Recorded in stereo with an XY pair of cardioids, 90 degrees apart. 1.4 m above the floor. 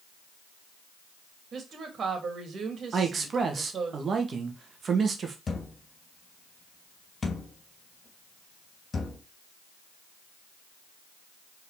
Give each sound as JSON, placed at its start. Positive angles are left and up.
{"t": 1.5, "sound": "a woman speaking", "azimuth_deg": -55, "distance_m": 3.0}
{"t": 2.9, "sound": "a man speaking", "azimuth_deg": -50, "distance_m": 2.0}
{"t": 5.5, "sound": "a thud", "azimuth_deg": 35, "distance_m": 3.5}